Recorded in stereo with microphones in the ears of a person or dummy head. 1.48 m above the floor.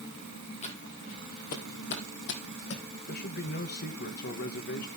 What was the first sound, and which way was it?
Footsteps, 30° left (ahead or behind).